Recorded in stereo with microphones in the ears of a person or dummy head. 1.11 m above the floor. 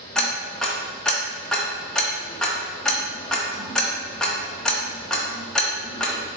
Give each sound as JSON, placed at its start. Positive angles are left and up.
{"t": 0.1, "sound": "ticking", "side_deg": 0, "distance_m": 0.6}